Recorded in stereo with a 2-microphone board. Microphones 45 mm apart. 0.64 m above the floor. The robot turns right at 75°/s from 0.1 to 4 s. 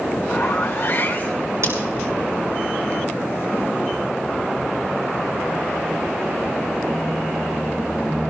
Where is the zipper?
70° left, 2.5 m; by 1.5 s 155° left, 2.5 m.